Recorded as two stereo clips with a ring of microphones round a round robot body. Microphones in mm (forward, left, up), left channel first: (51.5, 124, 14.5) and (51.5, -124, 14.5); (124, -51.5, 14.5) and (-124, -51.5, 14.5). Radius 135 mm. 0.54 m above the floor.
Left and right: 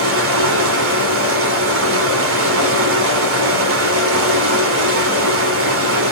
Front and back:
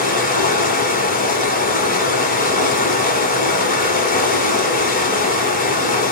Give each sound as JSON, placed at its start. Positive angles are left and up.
{"t": 0.0, "sound": "running water", "azimuth_deg": -55, "distance_m": 1.2}